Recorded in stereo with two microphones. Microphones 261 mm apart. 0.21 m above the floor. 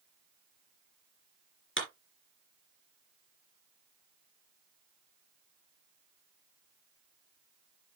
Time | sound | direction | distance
1.8 | a clap | 50° left (ahead or behind) | 3 m